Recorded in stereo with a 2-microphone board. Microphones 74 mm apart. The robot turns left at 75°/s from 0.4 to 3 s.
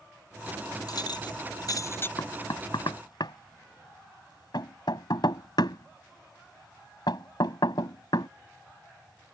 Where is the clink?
60° left (ahead or behind); by 2.1 s 30° left (ahead or behind).